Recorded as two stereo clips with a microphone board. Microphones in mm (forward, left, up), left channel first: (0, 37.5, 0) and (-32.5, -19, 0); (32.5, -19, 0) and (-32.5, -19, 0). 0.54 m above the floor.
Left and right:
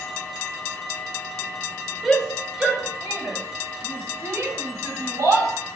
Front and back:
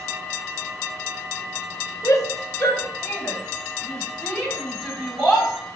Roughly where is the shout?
Ahead right.